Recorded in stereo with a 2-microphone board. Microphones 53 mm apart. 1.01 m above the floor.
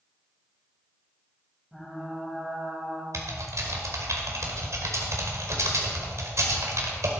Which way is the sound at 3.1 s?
70° right (ahead or behind).